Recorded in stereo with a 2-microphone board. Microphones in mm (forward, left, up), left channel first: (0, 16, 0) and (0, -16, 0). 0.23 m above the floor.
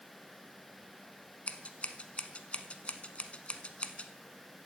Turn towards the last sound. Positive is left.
turn(degrees=40)  # may be behind; listen again after turning